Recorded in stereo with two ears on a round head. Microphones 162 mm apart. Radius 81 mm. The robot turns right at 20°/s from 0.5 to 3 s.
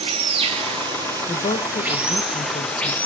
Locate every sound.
0.0 s running water: 40° right, 0.9 m; by 3.1 s 10° left, 0.9 m
1.3 s a woman speaking: 40° left, 0.6 m; by 3.0 s 75° left, 0.6 m